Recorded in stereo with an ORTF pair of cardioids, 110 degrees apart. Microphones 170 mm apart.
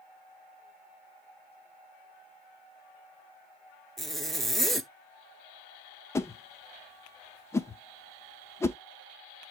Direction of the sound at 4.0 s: Straight ahead.